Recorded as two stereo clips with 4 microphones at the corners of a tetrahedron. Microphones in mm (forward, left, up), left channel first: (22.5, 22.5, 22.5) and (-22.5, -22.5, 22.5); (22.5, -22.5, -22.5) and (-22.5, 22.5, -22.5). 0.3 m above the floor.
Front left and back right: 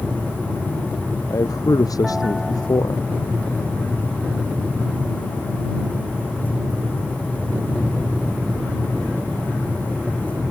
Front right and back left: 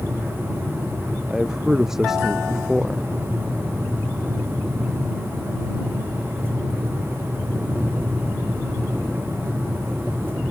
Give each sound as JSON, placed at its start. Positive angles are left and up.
{"t": 1.3, "sound": "a man speaking", "azimuth_deg": 50}